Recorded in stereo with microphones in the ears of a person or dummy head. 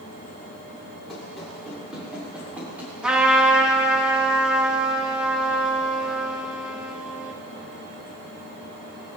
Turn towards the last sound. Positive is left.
turn(degrees=-5)  # may be behind; listen again after turning